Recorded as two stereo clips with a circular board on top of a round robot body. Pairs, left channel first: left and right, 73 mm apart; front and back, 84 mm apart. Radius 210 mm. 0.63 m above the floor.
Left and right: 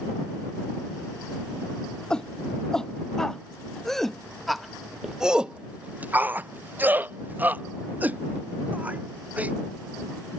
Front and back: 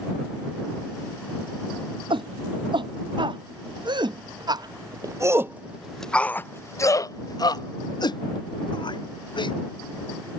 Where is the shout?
170° left; by 9.5 s 20° right.